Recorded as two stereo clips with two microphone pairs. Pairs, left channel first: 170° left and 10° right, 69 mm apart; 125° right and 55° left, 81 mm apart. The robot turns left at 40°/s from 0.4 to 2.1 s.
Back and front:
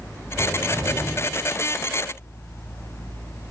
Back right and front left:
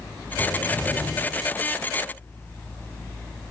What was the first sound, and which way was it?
A cupboard door, 30° right.